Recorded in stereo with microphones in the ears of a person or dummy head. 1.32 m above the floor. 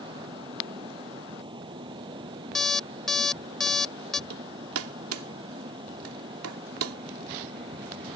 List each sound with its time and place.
0.0 s a fan: 25° right (ahead or behind)
2.5 s an alarm clock: 5° left (ahead or behind)
4.3 s hammering: 80° right